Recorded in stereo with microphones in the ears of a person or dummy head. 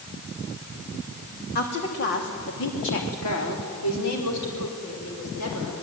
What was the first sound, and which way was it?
A woman speaking, 55° left (ahead or behind).